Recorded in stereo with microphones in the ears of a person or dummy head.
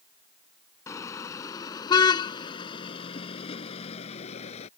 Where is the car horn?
25° left (ahead or behind); by 4.7 s 45° left (ahead or behind).